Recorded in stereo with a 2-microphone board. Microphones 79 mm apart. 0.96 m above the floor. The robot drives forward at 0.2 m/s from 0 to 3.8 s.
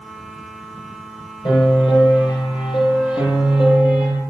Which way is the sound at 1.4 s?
85° left.